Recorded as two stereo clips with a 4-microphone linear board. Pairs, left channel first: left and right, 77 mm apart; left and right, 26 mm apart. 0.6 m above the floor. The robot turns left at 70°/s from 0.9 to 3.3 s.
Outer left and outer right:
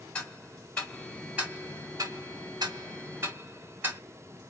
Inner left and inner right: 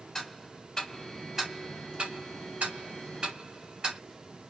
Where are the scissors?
I don't hear scissors.